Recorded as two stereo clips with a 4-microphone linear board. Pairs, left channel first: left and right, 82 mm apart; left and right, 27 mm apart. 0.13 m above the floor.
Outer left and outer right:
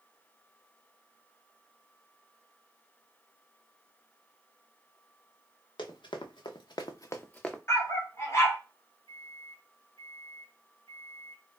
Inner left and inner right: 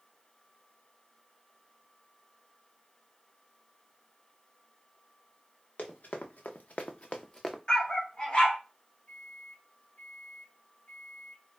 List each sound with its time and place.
5.8 s running footsteps: 75° left (ahead or behind), 1.0 m; by 7.6 s 5° left (ahead or behind), 0.6 m
7.7 s a dog barking: 35° left (ahead or behind), 0.9 m
9.1 s a microwave: 45° left (ahead or behind), 2 m